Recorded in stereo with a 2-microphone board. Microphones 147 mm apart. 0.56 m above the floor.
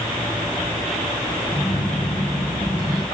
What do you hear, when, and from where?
1.5 s a phone buzzing: 55° left (ahead or behind), 5 m